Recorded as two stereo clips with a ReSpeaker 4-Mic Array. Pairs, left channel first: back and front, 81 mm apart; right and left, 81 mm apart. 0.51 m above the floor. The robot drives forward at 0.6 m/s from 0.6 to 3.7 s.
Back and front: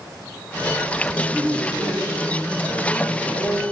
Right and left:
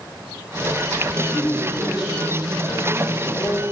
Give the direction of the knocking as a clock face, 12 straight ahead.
No knocking in this recording.